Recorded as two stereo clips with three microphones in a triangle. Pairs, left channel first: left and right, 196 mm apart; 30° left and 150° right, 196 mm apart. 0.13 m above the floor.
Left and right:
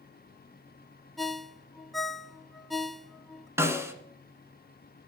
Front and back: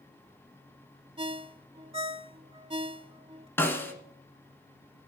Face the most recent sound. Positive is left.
turn(degrees=-35)